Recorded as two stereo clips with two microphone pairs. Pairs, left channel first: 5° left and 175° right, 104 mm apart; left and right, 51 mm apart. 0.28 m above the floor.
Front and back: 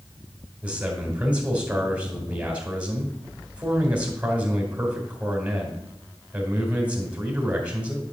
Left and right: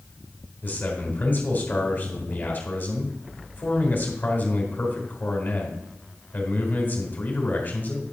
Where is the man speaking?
115° left, 2 m.